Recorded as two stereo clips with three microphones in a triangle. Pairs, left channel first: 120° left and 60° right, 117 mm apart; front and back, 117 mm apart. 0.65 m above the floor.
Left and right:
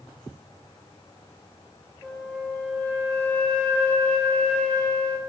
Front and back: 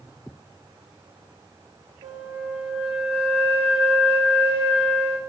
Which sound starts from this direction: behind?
A flute, at 2.0 s.